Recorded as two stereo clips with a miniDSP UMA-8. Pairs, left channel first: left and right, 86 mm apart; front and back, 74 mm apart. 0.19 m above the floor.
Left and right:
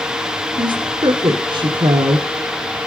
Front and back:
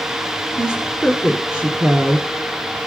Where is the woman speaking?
110° right, 1.8 m.